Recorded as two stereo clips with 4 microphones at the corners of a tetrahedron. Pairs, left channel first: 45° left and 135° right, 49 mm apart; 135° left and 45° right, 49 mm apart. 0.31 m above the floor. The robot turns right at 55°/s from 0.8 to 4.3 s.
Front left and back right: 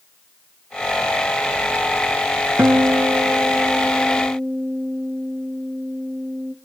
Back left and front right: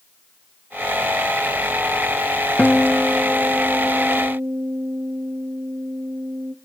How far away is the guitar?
About 0.8 m.